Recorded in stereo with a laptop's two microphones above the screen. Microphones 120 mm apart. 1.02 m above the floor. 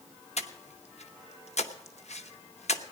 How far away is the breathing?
About 0.8 m.